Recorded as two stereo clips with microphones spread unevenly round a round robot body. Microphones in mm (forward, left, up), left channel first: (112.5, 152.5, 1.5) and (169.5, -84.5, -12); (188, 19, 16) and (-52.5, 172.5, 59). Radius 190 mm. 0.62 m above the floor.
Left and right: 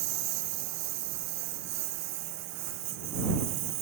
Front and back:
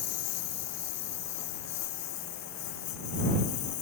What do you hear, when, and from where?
0.0 s a lawn mower: 85° right; by 3.8 s 75° right